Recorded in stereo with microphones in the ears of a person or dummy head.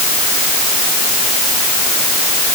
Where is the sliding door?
No sliding door in this recording.